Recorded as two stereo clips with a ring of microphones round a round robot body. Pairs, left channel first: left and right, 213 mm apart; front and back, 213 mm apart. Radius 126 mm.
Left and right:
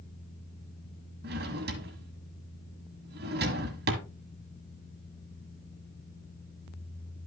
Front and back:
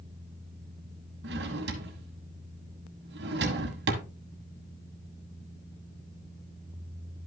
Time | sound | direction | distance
1.2 | a drawer | 135° right | 1.4 m